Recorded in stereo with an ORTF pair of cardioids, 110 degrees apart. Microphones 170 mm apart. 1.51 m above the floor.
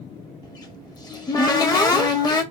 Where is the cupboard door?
25° left, 0.8 m.